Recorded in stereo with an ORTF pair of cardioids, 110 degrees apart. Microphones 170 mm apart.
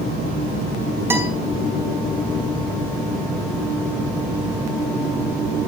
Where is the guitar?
15° right, 5.5 m.